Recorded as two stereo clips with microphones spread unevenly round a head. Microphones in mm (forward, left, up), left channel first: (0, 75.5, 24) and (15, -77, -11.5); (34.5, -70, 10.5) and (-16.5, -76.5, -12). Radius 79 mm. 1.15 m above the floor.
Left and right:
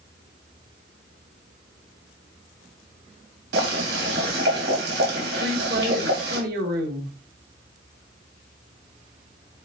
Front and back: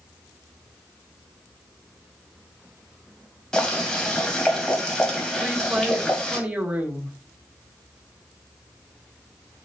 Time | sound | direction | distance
3.5 | boiling | 65° right | 3 m
5.4 | a woman speaking | 110° right | 2 m